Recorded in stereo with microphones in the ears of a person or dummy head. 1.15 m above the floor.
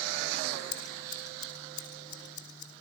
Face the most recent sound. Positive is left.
turn(degrees=30)  # may be behind; listen again after turning